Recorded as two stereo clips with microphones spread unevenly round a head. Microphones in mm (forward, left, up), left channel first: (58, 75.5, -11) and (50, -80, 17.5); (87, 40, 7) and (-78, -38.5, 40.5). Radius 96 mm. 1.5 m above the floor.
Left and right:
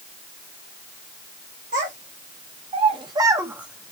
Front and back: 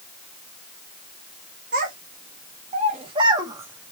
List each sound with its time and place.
1.7 s a child speaking: 120° right, 1.4 m; by 3.9 s 155° right, 0.6 m